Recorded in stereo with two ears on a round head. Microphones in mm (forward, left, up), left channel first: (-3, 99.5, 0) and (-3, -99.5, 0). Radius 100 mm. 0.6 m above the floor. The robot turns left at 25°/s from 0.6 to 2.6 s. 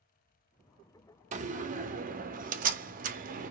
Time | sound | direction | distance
1.3 | a door slam | 60° right | 0.6 m